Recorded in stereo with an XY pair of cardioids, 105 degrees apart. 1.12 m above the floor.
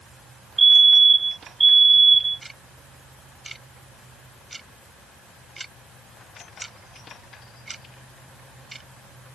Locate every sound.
0.6 s a fire alarm: 25° right
2.4 s ticking: 15° right